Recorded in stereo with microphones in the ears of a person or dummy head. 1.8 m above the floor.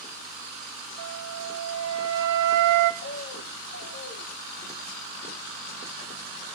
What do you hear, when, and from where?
1.0 s a flute: 65° right (ahead or behind), 1.6 m
3.0 s a bird: 50° left (ahead or behind), 1.4 m